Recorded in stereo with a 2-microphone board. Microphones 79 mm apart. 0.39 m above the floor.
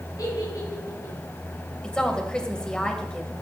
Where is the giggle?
55° left (ahead or behind), 6 m.